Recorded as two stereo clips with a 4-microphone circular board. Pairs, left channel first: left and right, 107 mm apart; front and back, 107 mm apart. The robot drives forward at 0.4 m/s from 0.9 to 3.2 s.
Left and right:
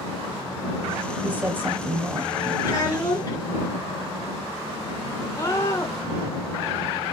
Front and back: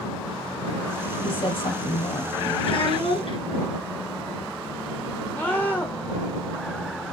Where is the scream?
60° left, 1.2 m.